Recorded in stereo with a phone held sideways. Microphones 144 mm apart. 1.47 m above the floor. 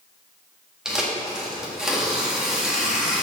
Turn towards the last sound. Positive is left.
turn(degrees=-5)  # may be behind; listen again after turning